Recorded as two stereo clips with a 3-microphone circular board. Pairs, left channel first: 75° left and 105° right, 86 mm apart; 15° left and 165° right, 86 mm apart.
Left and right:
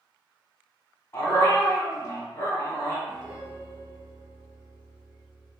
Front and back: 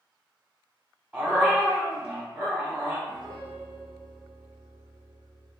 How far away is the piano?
About 1.4 m.